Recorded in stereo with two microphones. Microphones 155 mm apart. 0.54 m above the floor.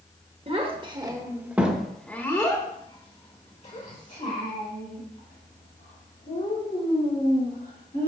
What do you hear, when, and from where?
0.5 s a child speaking: 40° right (ahead or behind), 1.2 m; by 8.1 s 75° left (ahead or behind), 3.5 m